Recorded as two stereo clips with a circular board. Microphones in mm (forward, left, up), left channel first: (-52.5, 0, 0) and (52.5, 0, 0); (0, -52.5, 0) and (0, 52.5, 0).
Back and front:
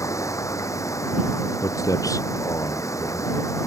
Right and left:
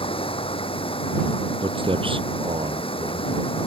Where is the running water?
120° right.